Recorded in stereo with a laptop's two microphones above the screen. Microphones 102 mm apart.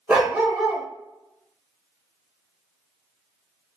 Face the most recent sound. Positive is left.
turn(degrees=-15)  # may be behind; listen again after turning